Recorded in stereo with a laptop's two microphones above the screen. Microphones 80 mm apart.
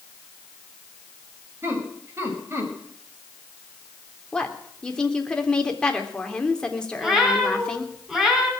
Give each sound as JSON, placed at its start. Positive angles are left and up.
{"t": 1.6, "sound": "laughter", "side_deg": -35, "distance_m": 6.0}
{"t": 4.3, "sound": "a woman speaking", "side_deg": 10, "distance_m": 3.0}
{"t": 7.0, "sound": "a cat meowing", "side_deg": -5, "distance_m": 5.0}